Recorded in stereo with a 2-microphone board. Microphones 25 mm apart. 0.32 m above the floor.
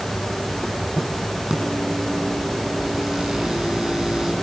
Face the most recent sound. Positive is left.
turn(degrees=-35)  # may be behind; listen again after turning